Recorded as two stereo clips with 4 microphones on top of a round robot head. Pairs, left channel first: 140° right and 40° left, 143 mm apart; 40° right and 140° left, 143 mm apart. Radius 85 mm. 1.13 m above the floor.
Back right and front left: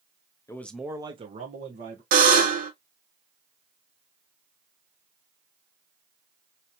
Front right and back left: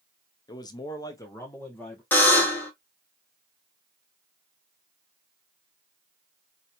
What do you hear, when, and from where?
0.5 s a man speaking: 85° right, 0.8 m; by 2.0 s 40° left, 1.4 m
2.1 s a buzzer: 35° left, 1.1 m